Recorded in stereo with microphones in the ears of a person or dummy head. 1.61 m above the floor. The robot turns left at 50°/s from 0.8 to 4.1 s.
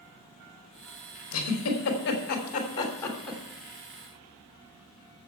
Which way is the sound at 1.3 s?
70° left (ahead or behind).